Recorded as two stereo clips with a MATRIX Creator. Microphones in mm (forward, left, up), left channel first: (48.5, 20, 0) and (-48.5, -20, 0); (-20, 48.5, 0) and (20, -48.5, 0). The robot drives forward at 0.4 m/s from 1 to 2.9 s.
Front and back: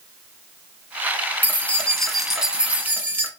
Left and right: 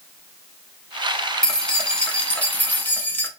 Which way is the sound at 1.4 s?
40° left.